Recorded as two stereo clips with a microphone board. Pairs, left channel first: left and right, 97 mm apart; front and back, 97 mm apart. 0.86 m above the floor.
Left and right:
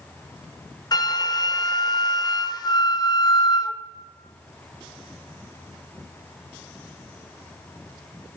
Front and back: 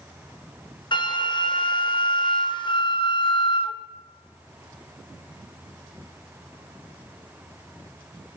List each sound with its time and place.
0.9 s a flute: 40° left, 0.6 m